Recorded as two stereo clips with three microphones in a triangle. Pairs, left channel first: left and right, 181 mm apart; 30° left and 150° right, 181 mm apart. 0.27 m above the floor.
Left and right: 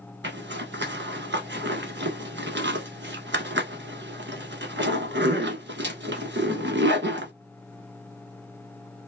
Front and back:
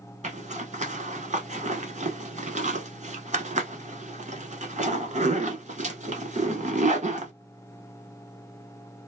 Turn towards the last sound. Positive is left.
turn(degrees=-100)